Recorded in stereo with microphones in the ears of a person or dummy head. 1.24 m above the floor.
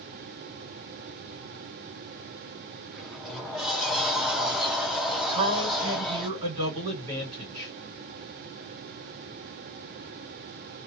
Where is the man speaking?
25° right (ahead or behind), 1.5 m.